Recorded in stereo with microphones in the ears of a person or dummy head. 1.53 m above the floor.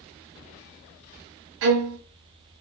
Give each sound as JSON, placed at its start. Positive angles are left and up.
{"t": 1.6, "sound": "a violin", "side_deg": -70, "distance_m": 0.7}